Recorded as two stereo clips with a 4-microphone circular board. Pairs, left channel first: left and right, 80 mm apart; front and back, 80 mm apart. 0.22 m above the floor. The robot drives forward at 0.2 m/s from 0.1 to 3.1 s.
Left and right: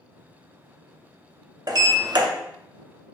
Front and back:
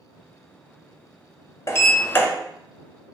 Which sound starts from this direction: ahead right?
A sliding door, at 1.7 s.